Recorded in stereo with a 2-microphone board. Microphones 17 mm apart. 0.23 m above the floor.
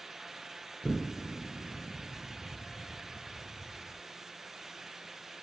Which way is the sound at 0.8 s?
65° left (ahead or behind).